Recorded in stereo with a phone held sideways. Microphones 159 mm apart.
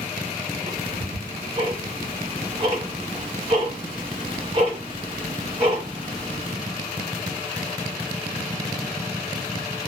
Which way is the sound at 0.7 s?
30° right (ahead or behind).